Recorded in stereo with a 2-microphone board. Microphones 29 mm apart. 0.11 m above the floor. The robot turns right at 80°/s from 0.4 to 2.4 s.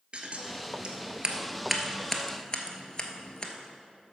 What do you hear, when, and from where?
0.1 s scissors: 40° right (ahead or behind), 0.9 m; by 3.5 s 30° left (ahead or behind), 0.9 m